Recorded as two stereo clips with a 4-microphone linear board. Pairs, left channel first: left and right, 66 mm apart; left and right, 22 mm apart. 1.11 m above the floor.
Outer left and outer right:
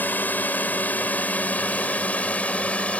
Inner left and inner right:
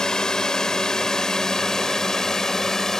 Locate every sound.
0.0 s a drone: 30° left (ahead or behind); by 3.0 s 20° left (ahead or behind)